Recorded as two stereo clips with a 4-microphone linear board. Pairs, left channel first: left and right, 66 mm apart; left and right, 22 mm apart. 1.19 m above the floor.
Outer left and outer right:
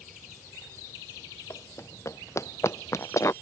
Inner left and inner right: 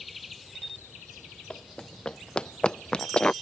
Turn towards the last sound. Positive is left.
turn(degrees=45)  # may be behind; listen again after turning